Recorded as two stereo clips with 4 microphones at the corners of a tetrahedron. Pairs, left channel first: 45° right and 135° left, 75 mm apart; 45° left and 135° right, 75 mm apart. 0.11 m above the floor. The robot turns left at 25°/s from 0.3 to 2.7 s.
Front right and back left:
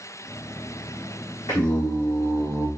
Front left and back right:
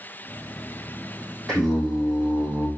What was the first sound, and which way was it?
Singing, 40° right.